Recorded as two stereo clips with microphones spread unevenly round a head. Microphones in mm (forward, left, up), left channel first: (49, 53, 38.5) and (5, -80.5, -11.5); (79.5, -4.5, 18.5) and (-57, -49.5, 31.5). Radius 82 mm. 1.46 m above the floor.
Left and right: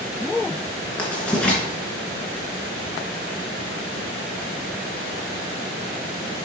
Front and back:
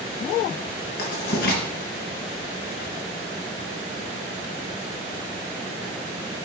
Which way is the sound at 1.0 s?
Straight ahead.